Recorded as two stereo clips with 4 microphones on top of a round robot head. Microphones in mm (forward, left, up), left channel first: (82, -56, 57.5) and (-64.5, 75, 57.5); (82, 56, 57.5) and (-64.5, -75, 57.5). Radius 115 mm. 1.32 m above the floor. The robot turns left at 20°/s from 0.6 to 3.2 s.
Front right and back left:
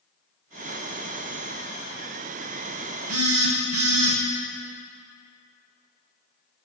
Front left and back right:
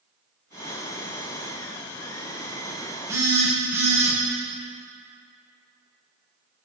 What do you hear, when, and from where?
3.1 s a phone buzzing: 145° left, 1.2 m